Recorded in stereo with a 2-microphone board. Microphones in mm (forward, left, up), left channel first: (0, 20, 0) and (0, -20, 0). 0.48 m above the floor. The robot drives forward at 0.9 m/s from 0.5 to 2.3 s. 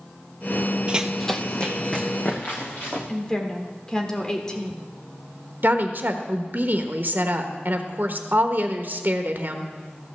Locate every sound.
0.9 s running footsteps: 25° right (ahead or behind), 0.6 m; by 3.0 s 50° left (ahead or behind), 2.5 m
3.1 s a woman speaking: 15° left (ahead or behind), 1.5 m
5.6 s a woman speaking: 55° right (ahead or behind), 1.2 m